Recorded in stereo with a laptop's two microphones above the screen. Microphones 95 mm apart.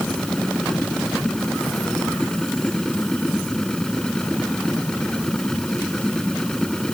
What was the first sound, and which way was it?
A machine running, 5° left (ahead or behind).